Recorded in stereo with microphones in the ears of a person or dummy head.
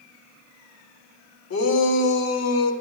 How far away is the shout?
About 2.5 m.